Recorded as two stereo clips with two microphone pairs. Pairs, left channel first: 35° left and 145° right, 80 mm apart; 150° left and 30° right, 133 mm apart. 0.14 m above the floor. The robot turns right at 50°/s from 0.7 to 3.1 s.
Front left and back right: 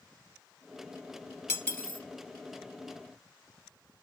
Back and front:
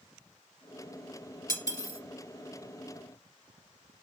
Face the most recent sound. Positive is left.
turn(degrees=165)